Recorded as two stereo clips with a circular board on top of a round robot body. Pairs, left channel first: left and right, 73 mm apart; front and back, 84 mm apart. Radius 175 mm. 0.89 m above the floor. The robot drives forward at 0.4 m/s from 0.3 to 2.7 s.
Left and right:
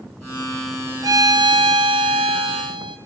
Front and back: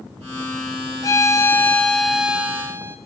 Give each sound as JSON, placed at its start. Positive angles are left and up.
{"t": 1.0, "sound": "a violin", "azimuth_deg": -50, "distance_m": 0.8}